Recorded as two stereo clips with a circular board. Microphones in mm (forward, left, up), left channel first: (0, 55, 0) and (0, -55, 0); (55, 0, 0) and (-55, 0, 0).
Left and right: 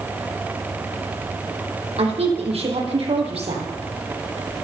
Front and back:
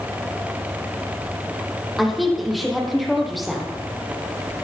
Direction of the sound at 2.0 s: 90° right.